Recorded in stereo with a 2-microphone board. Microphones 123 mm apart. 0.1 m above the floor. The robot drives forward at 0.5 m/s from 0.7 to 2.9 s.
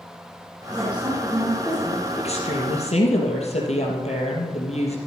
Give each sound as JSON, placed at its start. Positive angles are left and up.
{"t": 0.7, "sound": "a woman speaking", "side_deg": -10, "distance_m": 4.5}
{"t": 2.2, "sound": "a woman speaking", "side_deg": 60, "distance_m": 3.5}